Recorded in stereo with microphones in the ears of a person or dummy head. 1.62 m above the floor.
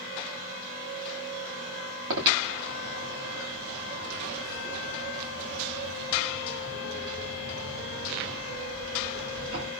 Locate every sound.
2.1 s breathing: 85° right, 2 m